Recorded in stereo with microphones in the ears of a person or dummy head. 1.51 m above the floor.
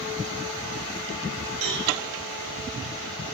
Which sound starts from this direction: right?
A cowbell, at 1.6 s.